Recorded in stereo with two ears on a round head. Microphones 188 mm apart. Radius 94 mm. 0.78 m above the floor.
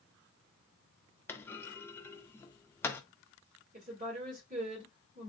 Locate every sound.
1.3 s a clunk: 10° left (ahead or behind), 0.5 m
3.7 s a woman speaking: 35° right (ahead or behind), 2.0 m